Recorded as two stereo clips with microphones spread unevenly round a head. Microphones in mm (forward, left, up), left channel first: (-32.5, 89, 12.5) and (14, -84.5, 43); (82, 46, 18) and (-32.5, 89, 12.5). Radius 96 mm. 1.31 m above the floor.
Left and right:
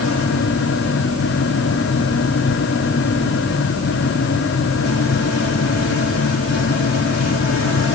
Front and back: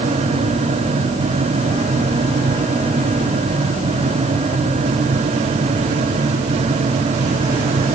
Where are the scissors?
I don't hear scissors.